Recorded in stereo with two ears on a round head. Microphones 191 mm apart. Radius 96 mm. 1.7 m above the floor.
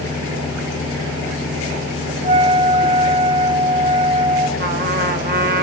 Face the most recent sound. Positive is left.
turn(degrees=-45)  # may be behind; listen again after turning